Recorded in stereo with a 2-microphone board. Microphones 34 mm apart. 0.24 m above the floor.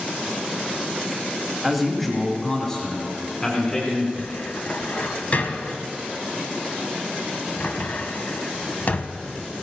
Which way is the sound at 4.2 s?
50° left (ahead or behind).